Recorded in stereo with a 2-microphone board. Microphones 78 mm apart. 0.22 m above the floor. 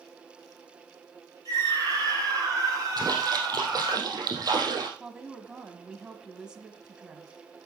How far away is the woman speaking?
About 1.2 m.